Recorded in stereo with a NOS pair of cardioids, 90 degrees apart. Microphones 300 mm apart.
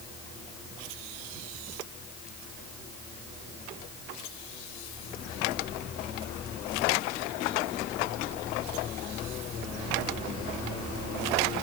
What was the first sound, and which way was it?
Only background noise.